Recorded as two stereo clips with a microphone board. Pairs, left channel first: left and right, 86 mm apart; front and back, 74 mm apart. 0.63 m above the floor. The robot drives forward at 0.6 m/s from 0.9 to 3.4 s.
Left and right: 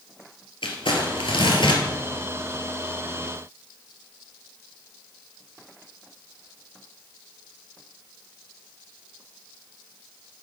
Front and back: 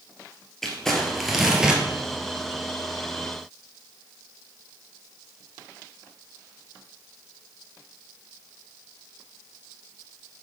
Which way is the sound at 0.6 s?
85° left.